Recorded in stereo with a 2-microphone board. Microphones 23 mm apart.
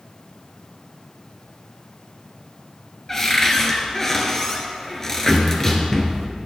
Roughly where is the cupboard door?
Left.